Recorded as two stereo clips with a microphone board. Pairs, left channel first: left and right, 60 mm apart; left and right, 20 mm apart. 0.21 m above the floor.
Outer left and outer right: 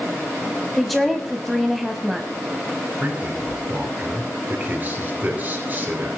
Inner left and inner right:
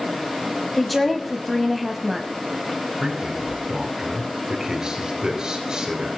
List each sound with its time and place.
0.8 s a woman speaking: centre (ahead or behind), 1.0 m
3.0 s a man speaking: 30° right (ahead or behind), 3 m